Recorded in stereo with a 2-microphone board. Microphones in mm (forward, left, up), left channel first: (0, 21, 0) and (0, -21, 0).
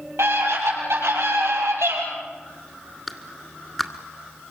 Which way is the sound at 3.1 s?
5° left (ahead or behind).